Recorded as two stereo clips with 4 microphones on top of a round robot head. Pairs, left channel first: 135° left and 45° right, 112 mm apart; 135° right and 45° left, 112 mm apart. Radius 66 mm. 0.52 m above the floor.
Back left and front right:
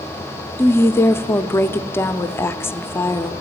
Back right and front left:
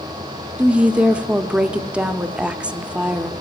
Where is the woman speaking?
110° left, 0.6 m.